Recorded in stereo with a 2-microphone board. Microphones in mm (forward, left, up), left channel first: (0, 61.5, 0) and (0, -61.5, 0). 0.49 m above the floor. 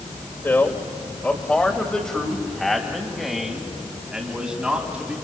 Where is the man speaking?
20° left (ahead or behind), 2.5 m; by 5.1 s 10° right (ahead or behind), 4 m.